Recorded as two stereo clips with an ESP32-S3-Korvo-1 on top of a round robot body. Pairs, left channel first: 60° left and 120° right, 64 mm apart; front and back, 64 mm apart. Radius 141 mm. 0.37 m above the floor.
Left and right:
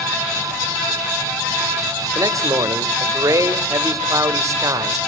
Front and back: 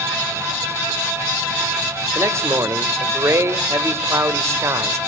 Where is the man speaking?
140° right, 3 m.